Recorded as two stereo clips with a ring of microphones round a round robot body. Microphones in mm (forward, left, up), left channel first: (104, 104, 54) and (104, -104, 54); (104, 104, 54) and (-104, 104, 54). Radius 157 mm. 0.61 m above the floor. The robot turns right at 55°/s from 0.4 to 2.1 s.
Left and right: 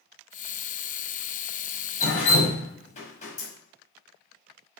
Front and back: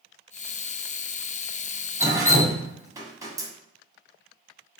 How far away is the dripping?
About 1.1 m.